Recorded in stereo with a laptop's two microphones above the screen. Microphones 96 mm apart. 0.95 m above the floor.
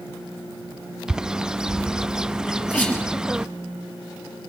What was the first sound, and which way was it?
A bird, 10° right (ahead or behind).